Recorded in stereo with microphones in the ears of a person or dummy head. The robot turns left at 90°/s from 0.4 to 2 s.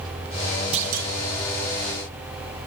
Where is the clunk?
35° right, 1.4 m; by 1.1 s 70° right, 1.4 m.